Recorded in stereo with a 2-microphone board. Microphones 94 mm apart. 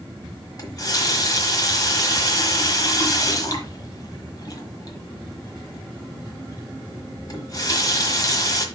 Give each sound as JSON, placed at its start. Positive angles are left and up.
{"t": 0.6, "sound": "a running tap", "side_deg": 40, "distance_m": 1.3}